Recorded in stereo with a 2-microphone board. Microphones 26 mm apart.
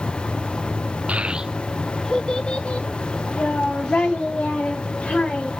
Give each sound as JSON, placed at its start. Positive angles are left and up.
{"t": 1.1, "sound": "a child speaking", "side_deg": -55, "distance_m": 0.6}